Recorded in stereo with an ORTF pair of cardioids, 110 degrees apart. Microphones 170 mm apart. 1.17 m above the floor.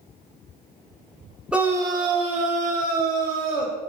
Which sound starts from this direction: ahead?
A scream, at 1.5 s.